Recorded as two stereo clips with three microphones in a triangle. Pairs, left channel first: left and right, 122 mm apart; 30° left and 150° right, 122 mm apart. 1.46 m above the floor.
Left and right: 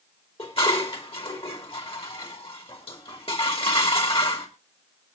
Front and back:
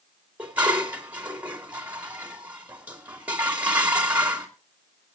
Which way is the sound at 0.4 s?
130° left.